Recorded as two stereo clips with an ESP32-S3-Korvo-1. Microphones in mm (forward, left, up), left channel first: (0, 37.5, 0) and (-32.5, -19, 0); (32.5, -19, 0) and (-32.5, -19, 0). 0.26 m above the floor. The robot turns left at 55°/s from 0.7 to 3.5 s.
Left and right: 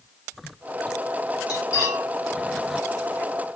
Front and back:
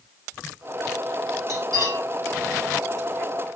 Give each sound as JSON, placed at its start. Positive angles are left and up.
{"t": 1.5, "sound": "cutlery clinking", "azimuth_deg": 35, "distance_m": 4.0}